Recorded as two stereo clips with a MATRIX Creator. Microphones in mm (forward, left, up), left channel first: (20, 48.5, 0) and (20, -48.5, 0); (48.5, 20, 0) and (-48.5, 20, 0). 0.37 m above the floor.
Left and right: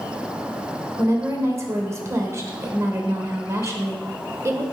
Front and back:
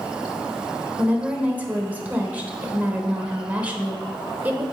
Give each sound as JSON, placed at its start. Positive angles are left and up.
{"t": 1.0, "sound": "a woman speaking", "azimuth_deg": -120, "distance_m": 1.1}